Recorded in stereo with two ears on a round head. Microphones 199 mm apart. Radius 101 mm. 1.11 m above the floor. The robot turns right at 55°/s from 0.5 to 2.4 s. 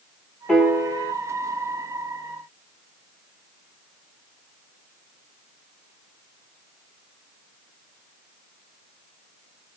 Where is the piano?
175° left, 0.7 m; by 1.1 s 150° right, 0.7 m.